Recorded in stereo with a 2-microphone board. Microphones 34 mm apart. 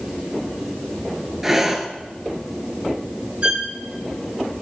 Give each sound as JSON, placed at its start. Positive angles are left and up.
{"t": 1.4, "sound": "breathing", "side_deg": -10, "distance_m": 0.7}
{"t": 3.4, "sound": "a violin", "side_deg": -35, "distance_m": 1.0}